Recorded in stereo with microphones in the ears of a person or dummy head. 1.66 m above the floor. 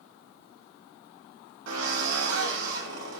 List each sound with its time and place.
1.7 s a drill: 75° right (ahead or behind), 4.5 m